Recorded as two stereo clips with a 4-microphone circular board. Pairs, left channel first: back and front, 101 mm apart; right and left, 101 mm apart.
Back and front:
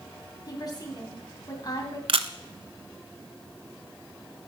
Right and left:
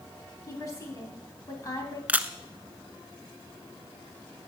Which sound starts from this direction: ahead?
A camera shutter, at 2.1 s.